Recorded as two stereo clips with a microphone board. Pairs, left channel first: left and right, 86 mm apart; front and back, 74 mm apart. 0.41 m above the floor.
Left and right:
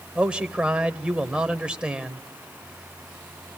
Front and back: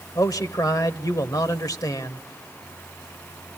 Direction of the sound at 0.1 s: 15° right.